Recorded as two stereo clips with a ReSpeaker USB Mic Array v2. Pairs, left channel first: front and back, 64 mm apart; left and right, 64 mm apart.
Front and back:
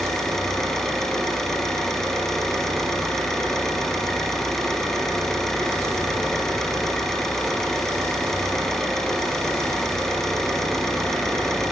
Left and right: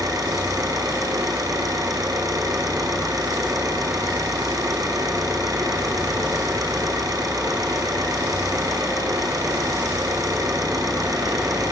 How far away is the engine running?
About 4.5 m.